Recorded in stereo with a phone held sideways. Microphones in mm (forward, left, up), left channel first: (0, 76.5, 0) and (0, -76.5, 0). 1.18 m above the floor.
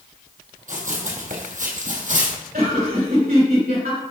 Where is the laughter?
80° right, 3.5 m.